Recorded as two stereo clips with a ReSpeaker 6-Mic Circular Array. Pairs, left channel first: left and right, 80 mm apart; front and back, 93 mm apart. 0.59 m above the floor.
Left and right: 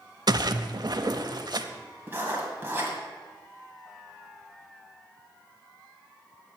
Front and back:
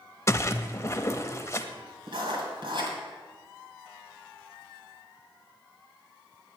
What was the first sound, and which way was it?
A splash, 60° right.